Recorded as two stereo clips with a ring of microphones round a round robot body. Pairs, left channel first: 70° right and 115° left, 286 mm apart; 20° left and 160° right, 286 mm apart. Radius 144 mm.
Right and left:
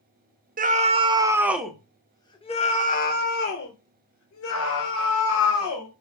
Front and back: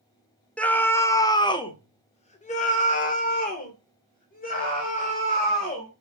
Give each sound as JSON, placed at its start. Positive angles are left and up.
{"t": 0.6, "sound": "a scream", "azimuth_deg": 105, "distance_m": 1.2}